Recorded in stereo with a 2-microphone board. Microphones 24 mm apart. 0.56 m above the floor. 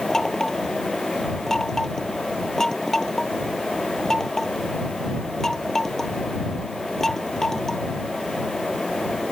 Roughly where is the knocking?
Centre.